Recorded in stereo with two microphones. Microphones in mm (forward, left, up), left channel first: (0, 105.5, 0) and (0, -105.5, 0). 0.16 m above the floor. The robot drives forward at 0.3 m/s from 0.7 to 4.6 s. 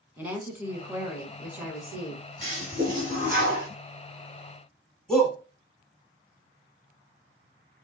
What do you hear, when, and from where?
0.2 s a woman speaking: 10° right (ahead or behind), 1.1 m; by 2.2 s 5° right (ahead or behind), 1.4 m
2.4 s a toilet flushing: 35° right (ahead or behind), 2.5 m; by 3.7 s 40° right (ahead or behind), 2 m
5.1 s a shout: 5° left (ahead or behind), 1.0 m